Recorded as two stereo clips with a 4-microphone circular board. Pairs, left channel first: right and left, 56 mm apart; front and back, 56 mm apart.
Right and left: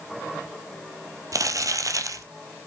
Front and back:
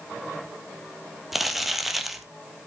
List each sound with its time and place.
1.3 s crumpling: 95° left, 1.5 m